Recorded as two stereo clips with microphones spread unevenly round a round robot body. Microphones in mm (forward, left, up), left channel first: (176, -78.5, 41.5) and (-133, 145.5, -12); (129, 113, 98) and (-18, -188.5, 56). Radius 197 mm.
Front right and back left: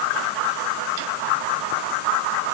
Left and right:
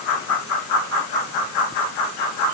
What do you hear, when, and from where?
Only background noise.